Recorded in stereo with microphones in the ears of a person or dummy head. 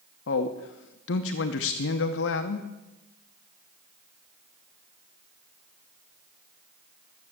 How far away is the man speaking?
About 0.7 m.